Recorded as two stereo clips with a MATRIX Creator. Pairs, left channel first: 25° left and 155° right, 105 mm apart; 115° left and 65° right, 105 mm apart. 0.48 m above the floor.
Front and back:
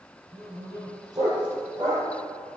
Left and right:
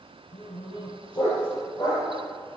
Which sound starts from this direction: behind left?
A dog barking, at 0.3 s.